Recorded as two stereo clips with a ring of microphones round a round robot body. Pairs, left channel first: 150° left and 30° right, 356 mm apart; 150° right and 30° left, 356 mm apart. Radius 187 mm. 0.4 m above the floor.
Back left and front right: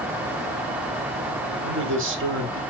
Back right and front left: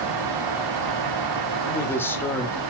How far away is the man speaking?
About 1.9 m.